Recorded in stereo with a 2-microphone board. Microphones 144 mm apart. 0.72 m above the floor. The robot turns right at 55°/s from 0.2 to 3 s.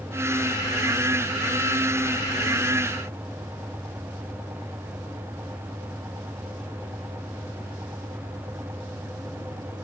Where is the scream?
No scream in this recording.